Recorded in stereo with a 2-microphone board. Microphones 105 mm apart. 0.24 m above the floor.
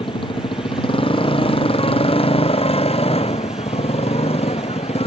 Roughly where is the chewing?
I don't hear chewing.